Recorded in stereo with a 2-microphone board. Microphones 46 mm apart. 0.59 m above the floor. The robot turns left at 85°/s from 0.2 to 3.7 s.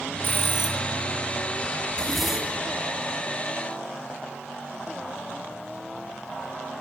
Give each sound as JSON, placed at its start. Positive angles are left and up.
{"t": 0.2, "sound": "a bell", "azimuth_deg": 125, "distance_m": 3.0}
{"t": 1.9, "sound": "a zipper", "azimuth_deg": 30, "distance_m": 4.0}